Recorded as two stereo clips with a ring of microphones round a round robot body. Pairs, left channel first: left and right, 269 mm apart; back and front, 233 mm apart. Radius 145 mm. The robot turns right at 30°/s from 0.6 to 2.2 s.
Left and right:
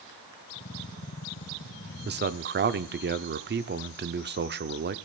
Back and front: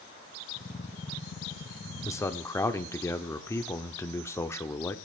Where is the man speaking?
110° right, 0.9 m; by 5.0 s 105° right, 0.9 m.